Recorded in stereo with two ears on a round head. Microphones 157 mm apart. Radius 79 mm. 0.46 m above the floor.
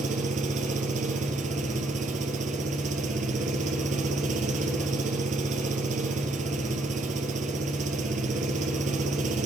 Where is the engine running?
45° right (ahead or behind), 2 m.